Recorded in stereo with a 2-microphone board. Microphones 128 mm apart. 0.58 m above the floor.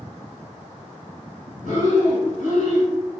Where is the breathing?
85° left, 1.1 m.